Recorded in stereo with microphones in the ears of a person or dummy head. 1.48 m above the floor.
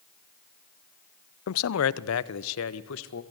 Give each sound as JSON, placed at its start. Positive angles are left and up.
{"t": 1.5, "sound": "a man speaking", "side_deg": 80, "distance_m": 0.6}